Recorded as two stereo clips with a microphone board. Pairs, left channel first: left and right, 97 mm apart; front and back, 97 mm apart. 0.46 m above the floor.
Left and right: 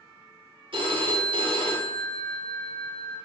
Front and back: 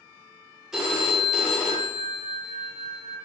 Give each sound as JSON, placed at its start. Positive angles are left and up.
{"t": 0.7, "sound": "a phone ringing", "azimuth_deg": -95, "distance_m": 0.6}